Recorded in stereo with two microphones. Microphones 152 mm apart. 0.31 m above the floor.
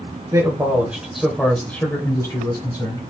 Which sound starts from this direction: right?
A man speaking, at 0.3 s.